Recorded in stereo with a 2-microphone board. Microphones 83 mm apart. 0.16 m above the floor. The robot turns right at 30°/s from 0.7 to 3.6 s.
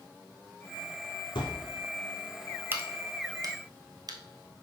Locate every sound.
1.4 s a thud: 65° left (ahead or behind), 2 m; by 1.7 s 55° left (ahead or behind), 2 m
2.7 s a crack: 25° right (ahead or behind), 1.1 m; by 4.2 s 50° right (ahead or behind), 1.1 m